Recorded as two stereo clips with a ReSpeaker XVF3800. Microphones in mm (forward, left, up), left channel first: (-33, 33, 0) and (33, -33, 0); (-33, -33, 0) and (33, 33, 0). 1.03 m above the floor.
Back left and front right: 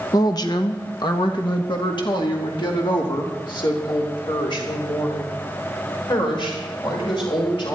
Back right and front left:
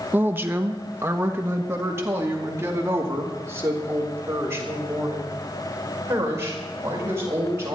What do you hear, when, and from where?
0.1 s a woman speaking: 110° left, 1.1 m; by 7.8 s 105° left, 6 m